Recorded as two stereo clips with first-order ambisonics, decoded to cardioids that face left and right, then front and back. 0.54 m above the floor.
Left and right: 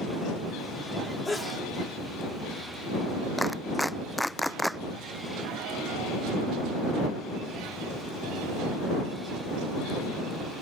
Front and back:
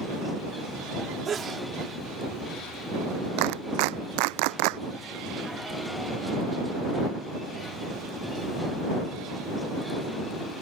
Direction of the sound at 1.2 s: 155° left.